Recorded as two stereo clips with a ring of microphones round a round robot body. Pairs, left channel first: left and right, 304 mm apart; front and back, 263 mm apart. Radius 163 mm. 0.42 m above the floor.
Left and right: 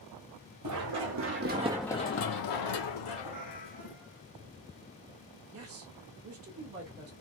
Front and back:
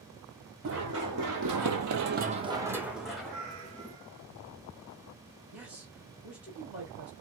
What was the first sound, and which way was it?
Running footsteps, 125° right.